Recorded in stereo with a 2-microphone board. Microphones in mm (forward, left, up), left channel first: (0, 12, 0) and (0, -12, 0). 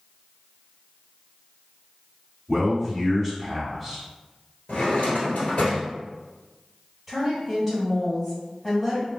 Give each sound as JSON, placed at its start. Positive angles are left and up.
{"t": 2.5, "sound": "a man speaking", "side_deg": 15, "distance_m": 1.5}
{"t": 4.7, "sound": "a drawer", "side_deg": 80, "distance_m": 1.5}
{"t": 7.1, "sound": "a woman speaking", "side_deg": 5, "distance_m": 1.4}